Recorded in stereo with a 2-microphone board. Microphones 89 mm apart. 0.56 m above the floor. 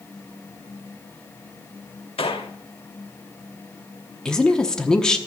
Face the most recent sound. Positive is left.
turn(degrees=10)  # may be behind; listen again after turning